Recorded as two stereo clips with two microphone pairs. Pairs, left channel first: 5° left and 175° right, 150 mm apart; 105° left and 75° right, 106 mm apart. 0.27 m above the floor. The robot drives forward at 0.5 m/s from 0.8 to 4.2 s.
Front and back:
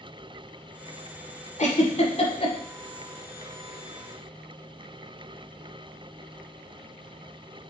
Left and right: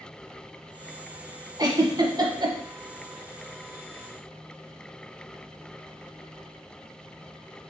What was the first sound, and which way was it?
A giggle, 25° right.